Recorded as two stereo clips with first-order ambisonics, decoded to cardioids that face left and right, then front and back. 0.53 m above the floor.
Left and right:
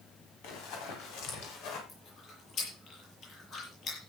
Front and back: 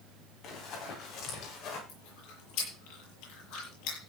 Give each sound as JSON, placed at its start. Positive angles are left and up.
{"t": 0.4, "sound": "running footsteps", "azimuth_deg": 55, "distance_m": 8.0}
{"t": 1.9, "sound": "chewing", "azimuth_deg": 30, "distance_m": 8.5}